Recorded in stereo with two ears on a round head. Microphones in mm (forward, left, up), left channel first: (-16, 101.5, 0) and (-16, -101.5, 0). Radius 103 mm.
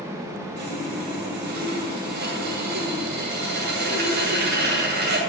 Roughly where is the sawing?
Right.